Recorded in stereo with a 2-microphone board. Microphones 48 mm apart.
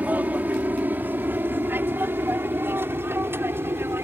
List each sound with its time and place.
0.0 s an aircraft: 35° right (ahead or behind); by 4.1 s 55° right (ahead or behind)